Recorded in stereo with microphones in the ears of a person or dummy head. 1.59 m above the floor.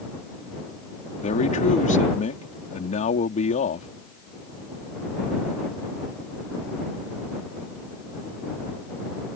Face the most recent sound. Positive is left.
turn(degrees=40)  # may be behind; listen again after turning